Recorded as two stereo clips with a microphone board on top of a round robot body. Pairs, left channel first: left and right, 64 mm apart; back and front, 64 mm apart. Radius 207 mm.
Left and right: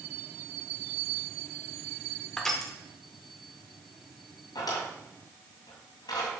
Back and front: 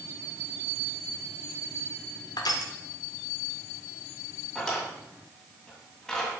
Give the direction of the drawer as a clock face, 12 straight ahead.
9 o'clock.